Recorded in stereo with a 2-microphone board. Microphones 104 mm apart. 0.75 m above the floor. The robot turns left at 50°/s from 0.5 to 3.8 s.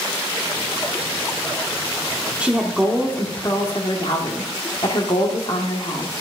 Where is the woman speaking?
165° right, 1.3 m; by 6.1 s 125° left, 1.3 m.